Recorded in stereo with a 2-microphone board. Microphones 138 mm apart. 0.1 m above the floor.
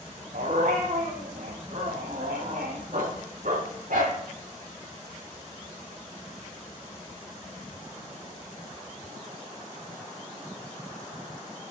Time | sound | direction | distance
0.3 | a dog barking | 80° right | 3.5 m